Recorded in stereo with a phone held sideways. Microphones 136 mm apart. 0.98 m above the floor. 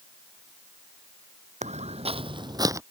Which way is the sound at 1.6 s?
60° right (ahead or behind).